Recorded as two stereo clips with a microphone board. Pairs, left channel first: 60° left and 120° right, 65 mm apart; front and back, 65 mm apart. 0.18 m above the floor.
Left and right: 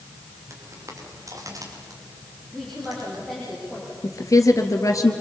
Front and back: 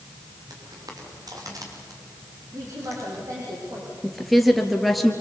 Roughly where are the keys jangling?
I don't hear keys jangling.